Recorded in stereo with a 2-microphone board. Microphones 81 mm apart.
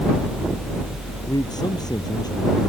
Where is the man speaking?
55° left (ahead or behind).